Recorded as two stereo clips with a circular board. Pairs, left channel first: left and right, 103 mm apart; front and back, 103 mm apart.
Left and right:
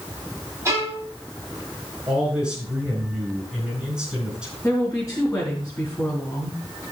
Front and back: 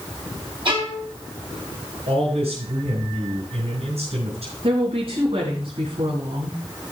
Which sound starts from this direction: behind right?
A violin, at 0.7 s.